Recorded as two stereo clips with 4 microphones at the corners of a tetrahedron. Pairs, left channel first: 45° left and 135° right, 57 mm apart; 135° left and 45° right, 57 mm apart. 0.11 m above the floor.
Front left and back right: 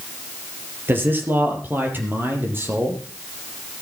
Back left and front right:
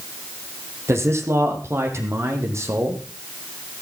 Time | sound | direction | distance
0.9 | a man speaking | 80° right | 3.5 m